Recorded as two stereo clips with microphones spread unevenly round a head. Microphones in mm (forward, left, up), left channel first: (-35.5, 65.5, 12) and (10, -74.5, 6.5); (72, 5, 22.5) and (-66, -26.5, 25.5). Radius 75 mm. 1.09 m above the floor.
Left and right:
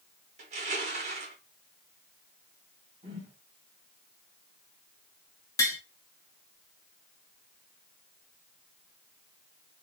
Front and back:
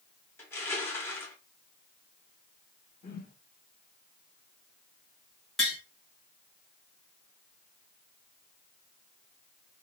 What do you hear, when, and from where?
0.4 s crushing: 55° right, 1.0 m
3.0 s a whoosh: 20° right, 1.0 m
5.6 s tapping: 100° left, 0.8 m